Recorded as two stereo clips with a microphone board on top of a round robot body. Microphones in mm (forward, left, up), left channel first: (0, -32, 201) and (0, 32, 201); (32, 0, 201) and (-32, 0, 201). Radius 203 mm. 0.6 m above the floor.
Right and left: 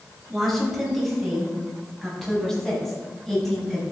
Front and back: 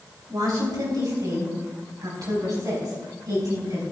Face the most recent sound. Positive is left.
turn(degrees=-175)